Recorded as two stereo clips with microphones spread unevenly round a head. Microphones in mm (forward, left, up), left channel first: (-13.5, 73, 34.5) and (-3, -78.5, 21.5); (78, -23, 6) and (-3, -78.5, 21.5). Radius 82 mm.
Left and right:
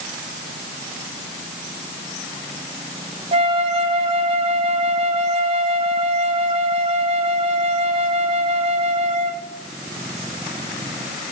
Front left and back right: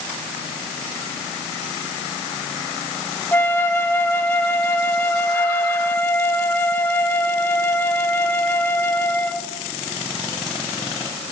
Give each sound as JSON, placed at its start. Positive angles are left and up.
{"t": 3.3, "sound": "a flute", "azimuth_deg": -35, "distance_m": 0.8}